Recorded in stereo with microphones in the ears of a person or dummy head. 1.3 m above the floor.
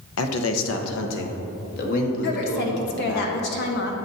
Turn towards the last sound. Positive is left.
turn(degrees=60)  # may be behind; listen again after turning